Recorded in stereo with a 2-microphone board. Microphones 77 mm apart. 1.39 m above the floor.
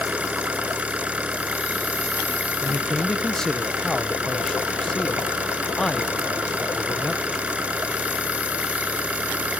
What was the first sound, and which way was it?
An engine running, 15° right (ahead or behind).